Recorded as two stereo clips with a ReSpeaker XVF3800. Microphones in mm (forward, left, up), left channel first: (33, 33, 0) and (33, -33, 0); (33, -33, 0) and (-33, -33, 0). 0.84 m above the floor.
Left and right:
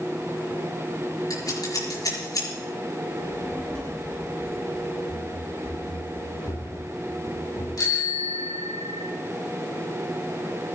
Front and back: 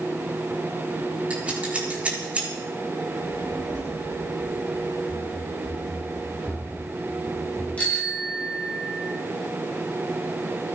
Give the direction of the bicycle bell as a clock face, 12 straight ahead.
10 o'clock.